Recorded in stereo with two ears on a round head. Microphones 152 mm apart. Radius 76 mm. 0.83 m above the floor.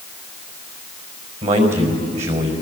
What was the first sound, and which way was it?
A man speaking, 45° right (ahead or behind).